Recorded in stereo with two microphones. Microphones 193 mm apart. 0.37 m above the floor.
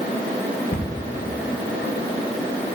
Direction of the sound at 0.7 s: 75° left (ahead or behind).